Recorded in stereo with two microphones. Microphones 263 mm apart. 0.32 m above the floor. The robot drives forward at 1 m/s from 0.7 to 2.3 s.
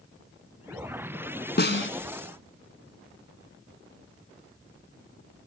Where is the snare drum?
40° left (ahead or behind), 1.3 m; by 1.9 s 50° left (ahead or behind), 1.0 m.